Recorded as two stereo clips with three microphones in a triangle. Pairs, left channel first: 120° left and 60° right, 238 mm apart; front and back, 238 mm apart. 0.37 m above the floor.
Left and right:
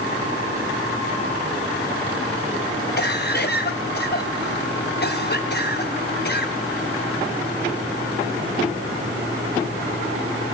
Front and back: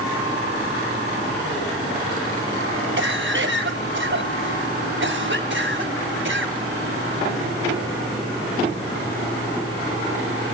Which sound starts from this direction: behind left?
A cough, at 3.0 s.